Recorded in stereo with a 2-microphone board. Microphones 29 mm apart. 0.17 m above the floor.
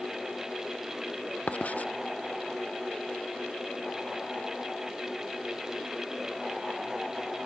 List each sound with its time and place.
1.5 s writing: 55° left (ahead or behind)